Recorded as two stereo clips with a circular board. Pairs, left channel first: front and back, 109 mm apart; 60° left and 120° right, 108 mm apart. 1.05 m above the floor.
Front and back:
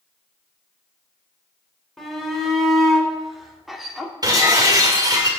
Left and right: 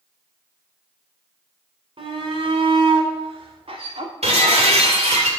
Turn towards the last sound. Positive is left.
turn(degrees=-130)